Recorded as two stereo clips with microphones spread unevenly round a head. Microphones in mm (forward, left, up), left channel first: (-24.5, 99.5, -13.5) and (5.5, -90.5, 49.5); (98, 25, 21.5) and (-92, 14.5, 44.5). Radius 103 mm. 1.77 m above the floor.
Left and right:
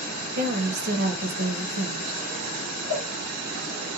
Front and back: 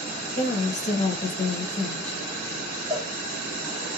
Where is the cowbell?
110° left, 2.0 m.